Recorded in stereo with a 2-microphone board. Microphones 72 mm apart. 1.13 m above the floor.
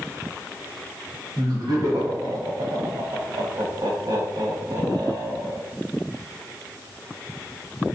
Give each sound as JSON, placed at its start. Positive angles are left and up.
{"t": 1.4, "sound": "laughter", "side_deg": -70, "distance_m": 1.4}